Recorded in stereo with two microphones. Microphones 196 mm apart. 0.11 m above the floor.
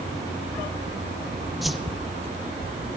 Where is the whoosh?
Centre (ahead or behind), 1.1 m.